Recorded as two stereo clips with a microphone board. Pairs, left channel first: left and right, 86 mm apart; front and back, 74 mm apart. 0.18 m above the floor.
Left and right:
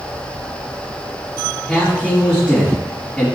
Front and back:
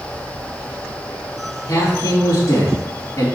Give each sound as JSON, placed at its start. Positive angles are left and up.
{"t": 1.7, "sound": "a man speaking", "azimuth_deg": 10, "distance_m": 1.8}